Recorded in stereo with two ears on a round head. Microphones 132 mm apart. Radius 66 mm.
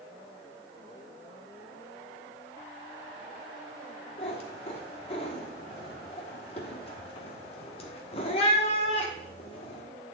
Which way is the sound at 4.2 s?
40° left (ahead or behind).